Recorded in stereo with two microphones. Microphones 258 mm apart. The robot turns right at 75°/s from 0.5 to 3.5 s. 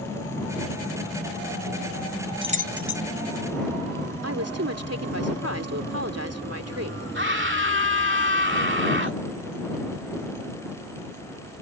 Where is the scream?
50° right (ahead or behind).